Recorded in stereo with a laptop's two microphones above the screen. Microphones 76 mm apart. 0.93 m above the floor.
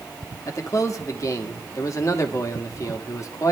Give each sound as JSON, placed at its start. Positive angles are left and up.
{"t": 0.5, "sound": "a man speaking", "side_deg": 45, "distance_m": 1.2}